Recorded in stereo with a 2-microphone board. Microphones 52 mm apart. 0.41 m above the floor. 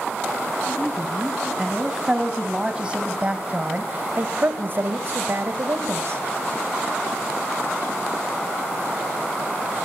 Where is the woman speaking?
5° right (ahead or behind), 4 m; by 6.2 s 60° right (ahead or behind), 2.5 m.